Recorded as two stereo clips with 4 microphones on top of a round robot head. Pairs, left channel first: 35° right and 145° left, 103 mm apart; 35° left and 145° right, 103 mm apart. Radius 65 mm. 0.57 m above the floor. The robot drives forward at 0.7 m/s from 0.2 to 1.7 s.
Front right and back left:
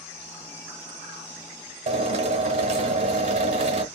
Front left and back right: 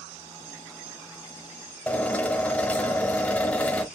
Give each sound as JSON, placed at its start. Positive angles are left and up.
{"t": 1.9, "sound": "a drill", "azimuth_deg": 115, "distance_m": 1.0}